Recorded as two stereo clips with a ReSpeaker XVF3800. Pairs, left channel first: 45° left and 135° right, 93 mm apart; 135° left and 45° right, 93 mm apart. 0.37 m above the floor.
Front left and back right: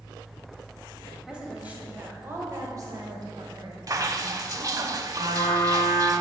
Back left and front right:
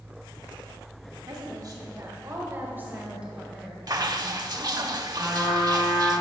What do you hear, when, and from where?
1.3 s a woman speaking: 55° right, 2.0 m; by 4.9 s 150° right, 2.5 m
3.9 s dripping: 85° right, 0.5 m
5.2 s a trumpet: 125° right, 2 m